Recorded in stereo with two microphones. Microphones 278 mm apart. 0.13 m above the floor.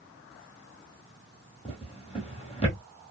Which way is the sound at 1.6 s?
20° left (ahead or behind).